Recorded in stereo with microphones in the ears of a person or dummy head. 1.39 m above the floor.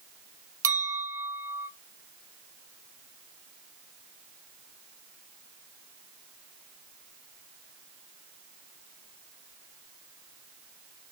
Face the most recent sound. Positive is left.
turn(degrees=-15)  # may be behind; listen again after turning